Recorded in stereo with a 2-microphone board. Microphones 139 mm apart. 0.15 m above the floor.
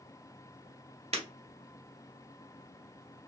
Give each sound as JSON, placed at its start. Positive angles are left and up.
{"t": 1.1, "sound": "breaking glass", "side_deg": -50, "distance_m": 1.7}